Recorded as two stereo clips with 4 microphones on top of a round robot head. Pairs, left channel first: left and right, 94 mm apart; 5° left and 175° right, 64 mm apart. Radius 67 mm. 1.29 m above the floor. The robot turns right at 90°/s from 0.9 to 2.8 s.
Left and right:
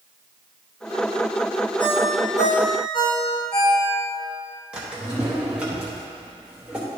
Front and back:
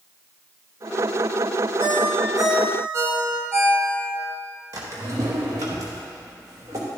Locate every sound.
1.8 s a ringtone: 50° left, 1.6 m; by 4.2 s 140° left, 1.6 m
4.7 s a drawer: 165° right, 0.7 m